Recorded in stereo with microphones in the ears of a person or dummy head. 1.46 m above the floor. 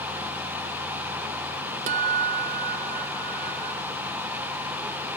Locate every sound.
1.9 s a guitar: 45° right (ahead or behind)